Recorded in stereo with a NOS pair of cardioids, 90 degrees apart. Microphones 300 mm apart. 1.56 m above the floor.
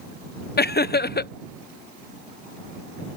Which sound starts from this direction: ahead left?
Laughter, at 0.6 s.